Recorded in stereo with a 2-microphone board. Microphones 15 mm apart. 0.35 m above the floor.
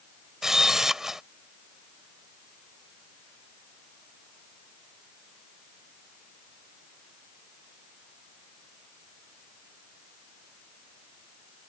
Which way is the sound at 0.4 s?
35° right (ahead or behind).